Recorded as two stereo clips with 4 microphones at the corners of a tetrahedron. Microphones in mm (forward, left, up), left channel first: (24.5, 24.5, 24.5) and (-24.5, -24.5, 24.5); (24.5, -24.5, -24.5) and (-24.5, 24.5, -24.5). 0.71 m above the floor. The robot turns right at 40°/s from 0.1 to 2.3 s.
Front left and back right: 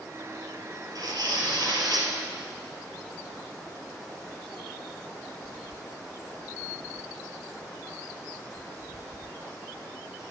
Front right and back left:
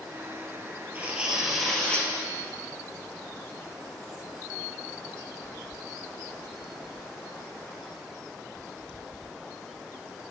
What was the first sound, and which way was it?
Tearing paper, 160° right.